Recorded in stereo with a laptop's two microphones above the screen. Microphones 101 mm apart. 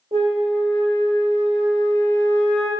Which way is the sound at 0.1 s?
70° right (ahead or behind).